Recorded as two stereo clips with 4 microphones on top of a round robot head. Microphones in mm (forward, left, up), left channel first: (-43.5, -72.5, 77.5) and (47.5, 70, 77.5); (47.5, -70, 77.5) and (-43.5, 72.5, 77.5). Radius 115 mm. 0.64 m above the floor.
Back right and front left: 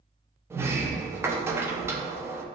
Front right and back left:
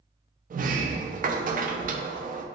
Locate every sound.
0.5 s a sliding door: 130° left, 0.6 m